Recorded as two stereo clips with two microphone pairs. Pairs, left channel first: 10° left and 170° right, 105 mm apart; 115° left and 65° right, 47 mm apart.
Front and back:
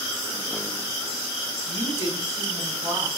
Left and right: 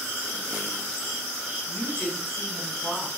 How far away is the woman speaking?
About 2.5 m.